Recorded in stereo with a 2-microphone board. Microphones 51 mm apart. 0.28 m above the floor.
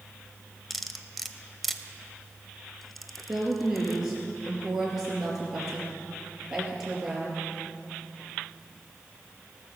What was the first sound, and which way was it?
Cutlery clinking, centre (ahead or behind).